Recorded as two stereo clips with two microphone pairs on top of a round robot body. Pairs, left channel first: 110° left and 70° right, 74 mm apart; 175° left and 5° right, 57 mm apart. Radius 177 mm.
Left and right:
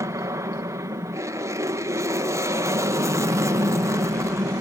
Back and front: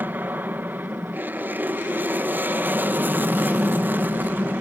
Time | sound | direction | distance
0.0 | an aircraft | 60° right | ?